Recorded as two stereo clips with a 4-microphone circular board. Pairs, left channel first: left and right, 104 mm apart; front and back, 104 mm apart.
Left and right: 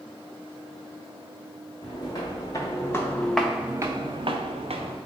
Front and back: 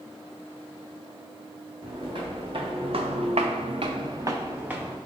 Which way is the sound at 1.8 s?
135° left.